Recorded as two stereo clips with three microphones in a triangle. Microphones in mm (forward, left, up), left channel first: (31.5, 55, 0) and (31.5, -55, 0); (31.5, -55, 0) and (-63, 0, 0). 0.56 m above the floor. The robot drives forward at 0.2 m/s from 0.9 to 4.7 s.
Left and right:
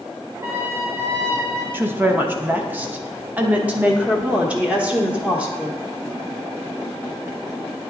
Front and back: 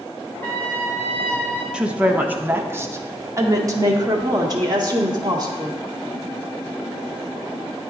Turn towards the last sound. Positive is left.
turn(degrees=-165)